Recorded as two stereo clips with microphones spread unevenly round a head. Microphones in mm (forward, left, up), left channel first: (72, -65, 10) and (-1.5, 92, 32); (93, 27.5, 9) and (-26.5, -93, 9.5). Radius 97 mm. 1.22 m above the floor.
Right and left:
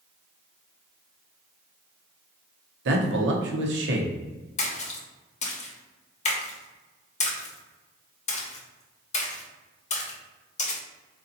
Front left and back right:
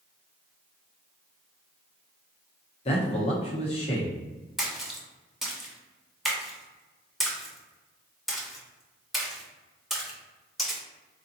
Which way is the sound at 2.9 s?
105° left.